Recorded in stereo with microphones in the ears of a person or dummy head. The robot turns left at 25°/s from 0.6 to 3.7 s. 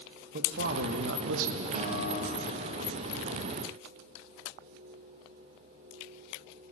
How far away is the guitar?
About 1.5 m.